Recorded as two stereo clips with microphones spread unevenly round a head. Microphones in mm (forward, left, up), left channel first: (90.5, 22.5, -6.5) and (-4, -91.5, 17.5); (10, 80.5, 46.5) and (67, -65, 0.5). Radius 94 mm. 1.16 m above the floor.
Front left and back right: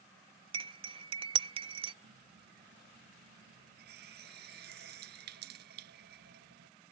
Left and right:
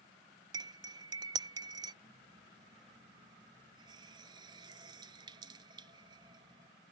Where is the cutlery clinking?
145° right.